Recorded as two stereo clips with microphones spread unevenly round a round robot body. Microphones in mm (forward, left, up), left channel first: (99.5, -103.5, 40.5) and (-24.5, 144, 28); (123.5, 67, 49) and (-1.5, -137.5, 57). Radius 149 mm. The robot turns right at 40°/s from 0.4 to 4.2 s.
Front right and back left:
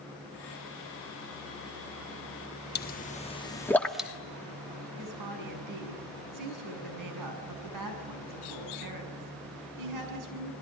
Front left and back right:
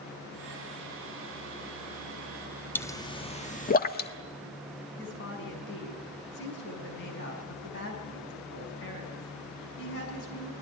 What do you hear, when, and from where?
2.8 s a pop: 20° right, 1.4 m; by 4.1 s 35° left, 1.4 m
5.0 s a woman speaking: 110° left, 6 m